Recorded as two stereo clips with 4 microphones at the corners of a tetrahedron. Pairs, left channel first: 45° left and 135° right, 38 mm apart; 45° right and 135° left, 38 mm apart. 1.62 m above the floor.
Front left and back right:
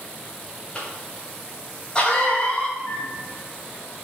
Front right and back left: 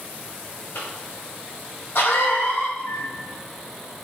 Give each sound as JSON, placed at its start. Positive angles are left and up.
{"t": 0.8, "sound": "a cough", "azimuth_deg": -15, "distance_m": 2.0}
{"t": 2.8, "sound": "a microwave", "azimuth_deg": -40, "distance_m": 2.5}